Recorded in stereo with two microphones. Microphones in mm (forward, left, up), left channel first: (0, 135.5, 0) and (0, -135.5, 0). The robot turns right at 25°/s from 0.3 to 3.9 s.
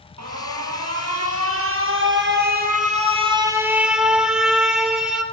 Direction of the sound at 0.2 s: 95° right.